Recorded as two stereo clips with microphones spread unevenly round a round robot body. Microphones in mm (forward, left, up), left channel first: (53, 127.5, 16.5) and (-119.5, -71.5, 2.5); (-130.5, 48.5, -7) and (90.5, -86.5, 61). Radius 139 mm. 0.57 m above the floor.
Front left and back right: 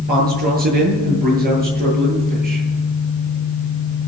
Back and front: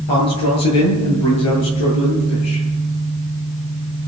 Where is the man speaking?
170° left, 9 m.